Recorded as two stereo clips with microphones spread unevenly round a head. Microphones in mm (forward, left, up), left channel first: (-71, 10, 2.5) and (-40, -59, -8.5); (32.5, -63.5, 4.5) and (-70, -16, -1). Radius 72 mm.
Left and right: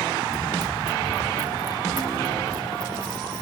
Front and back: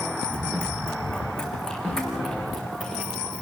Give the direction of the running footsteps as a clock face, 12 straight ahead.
3 o'clock.